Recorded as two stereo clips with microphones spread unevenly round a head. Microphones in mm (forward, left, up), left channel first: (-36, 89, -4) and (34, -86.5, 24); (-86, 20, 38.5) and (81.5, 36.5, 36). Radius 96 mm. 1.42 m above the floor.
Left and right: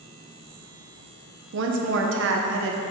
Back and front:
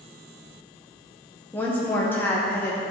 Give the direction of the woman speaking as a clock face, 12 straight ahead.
3 o'clock.